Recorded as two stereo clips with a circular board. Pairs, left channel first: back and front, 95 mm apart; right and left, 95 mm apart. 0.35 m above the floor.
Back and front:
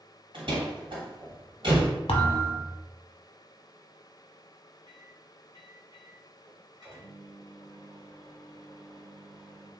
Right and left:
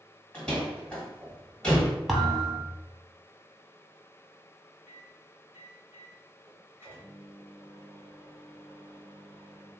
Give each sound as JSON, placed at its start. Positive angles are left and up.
{"t": 0.3, "sound": "a door slam", "azimuth_deg": -10, "distance_m": 1.4}
{"t": 2.1, "sound": "a thud", "azimuth_deg": 175, "distance_m": 0.7}
{"t": 4.9, "sound": "a microwave", "azimuth_deg": 30, "distance_m": 1.3}